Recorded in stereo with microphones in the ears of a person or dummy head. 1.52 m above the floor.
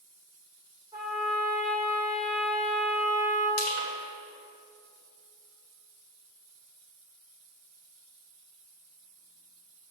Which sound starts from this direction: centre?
A trumpet, at 0.9 s.